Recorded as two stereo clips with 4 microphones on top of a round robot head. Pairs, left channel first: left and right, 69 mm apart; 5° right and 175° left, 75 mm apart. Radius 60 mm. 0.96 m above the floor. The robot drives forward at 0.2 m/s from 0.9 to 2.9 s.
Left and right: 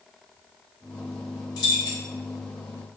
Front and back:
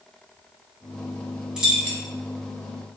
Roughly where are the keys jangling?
Left.